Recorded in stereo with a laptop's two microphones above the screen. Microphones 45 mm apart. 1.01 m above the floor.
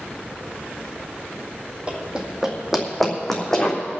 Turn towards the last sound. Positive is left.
turn(degrees=10)  # may be behind; listen again after turning